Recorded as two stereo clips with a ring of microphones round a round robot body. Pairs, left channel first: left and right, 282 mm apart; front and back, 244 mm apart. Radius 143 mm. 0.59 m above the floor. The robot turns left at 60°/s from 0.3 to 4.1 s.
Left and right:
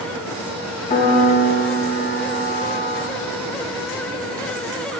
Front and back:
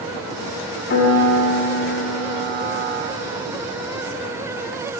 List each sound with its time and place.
0.9 s a piano: 35° left, 1.7 m; by 3.0 s 95° right, 1.7 m